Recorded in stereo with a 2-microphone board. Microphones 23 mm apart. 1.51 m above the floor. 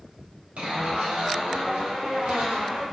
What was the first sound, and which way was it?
A zipper, 70° right (ahead or behind).